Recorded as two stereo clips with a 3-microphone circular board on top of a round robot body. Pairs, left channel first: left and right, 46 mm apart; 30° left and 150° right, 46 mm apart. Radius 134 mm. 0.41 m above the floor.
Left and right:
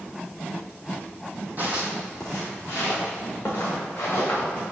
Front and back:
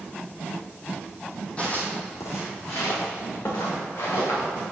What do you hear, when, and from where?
1.6 s footsteps: 35° right, 0.9 m; by 4.4 s 40° left, 3.5 m